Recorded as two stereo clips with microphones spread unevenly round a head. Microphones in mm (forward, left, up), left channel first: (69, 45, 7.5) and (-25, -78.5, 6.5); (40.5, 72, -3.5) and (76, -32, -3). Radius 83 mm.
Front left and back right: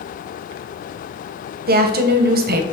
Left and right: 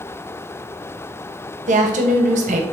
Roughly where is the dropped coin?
No dropped coin in this recording.